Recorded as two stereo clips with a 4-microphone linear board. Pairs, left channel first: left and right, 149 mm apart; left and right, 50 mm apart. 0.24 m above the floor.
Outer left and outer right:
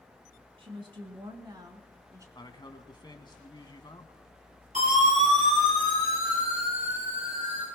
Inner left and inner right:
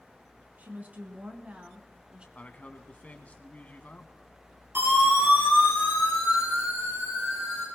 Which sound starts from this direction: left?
A man speaking, at 2.4 s.